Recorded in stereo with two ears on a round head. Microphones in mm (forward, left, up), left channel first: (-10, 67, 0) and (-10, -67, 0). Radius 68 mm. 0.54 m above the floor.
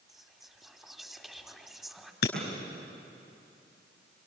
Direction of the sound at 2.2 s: 85° left.